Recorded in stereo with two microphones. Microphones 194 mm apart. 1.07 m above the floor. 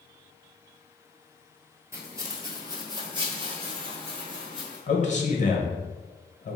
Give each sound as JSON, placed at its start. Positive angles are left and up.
{"t": 1.9, "sound": "footsteps", "side_deg": -15, "distance_m": 1.1}
{"t": 4.9, "sound": "a man speaking", "side_deg": 40, "distance_m": 0.8}